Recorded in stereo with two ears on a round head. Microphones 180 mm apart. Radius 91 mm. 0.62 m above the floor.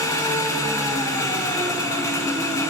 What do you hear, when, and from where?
0.0 s an engine running: 15° left (ahead or behind), 1.4 m